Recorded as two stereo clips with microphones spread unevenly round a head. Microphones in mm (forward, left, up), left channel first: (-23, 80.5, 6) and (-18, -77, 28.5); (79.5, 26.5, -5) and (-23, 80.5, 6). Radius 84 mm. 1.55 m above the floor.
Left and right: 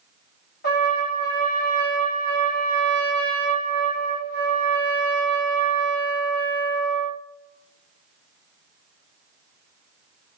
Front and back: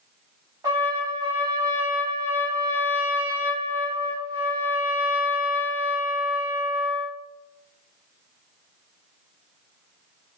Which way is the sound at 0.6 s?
105° left.